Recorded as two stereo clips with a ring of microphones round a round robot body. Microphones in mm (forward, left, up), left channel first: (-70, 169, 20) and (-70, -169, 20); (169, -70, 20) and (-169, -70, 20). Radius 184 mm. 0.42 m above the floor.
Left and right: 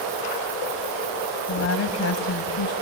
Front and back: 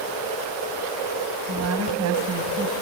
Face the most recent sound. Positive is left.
turn(degrees=130)